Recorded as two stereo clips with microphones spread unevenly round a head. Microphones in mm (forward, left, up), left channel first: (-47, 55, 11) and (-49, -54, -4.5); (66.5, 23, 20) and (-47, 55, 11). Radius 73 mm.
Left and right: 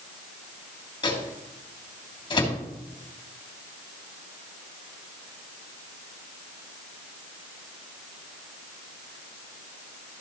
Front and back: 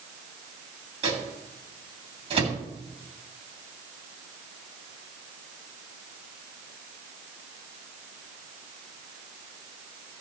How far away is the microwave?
About 3 m.